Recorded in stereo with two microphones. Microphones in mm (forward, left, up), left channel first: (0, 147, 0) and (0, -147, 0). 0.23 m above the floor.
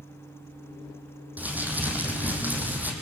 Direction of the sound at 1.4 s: 5° right (ahead or behind).